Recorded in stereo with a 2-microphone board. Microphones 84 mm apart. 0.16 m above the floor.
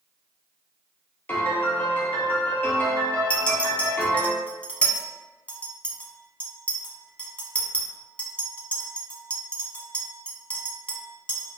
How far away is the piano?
About 0.9 m.